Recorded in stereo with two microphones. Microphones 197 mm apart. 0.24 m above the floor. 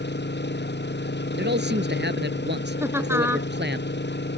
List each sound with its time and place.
0.0 s an engine running: 60° left (ahead or behind)
1.4 s a man speaking: 60° right (ahead or behind)
2.8 s laughter: 10° right (ahead or behind)